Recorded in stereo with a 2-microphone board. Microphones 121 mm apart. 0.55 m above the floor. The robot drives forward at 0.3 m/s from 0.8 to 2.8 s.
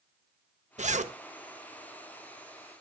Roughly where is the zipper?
Right.